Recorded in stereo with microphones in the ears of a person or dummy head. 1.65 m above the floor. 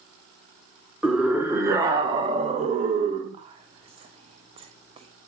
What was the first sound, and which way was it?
A scream, 5° left (ahead or behind).